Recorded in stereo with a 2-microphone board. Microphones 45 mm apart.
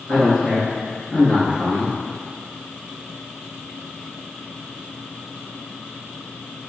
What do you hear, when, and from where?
0.1 s a man speaking: 5° left (ahead or behind), 1.2 m